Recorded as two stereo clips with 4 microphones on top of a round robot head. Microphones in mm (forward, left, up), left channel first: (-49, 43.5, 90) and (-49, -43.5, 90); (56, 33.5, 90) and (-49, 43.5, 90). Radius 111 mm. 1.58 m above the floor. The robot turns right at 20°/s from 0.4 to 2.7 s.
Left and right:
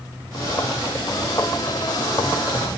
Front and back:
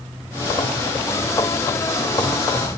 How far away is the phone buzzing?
No phone buzzing in this recording.